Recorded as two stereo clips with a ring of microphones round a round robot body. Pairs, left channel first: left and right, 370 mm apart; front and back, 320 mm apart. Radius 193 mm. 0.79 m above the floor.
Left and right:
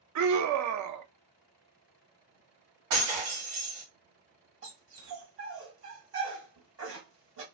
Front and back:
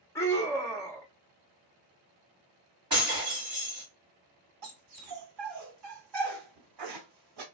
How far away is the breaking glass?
About 1.9 m.